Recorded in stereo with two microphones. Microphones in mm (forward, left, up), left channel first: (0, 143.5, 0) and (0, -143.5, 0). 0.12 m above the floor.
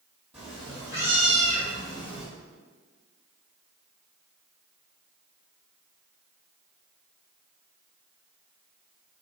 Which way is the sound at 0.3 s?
20° right (ahead or behind).